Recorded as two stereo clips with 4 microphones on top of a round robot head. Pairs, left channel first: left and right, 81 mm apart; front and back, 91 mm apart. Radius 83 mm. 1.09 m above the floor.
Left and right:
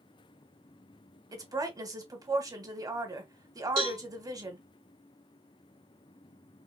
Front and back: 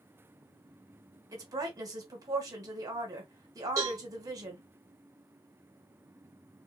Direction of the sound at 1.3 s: 130° right.